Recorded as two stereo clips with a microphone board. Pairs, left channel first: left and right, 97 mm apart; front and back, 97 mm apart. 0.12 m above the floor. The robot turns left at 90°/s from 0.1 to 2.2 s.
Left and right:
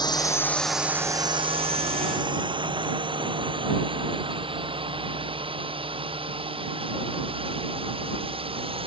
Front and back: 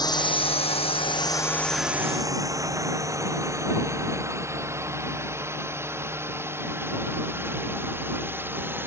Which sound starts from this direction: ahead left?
A drone, at 0.0 s.